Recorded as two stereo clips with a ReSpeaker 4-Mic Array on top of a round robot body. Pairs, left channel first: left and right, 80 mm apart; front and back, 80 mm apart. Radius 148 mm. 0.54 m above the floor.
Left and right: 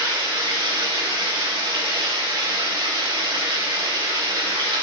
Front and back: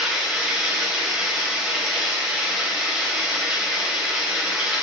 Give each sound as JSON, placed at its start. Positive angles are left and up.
{"t": 0.0, "sound": "running water", "azimuth_deg": -100, "distance_m": 3.0}